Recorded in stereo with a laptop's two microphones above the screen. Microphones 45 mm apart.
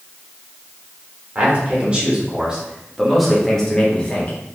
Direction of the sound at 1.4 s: 30° right (ahead or behind).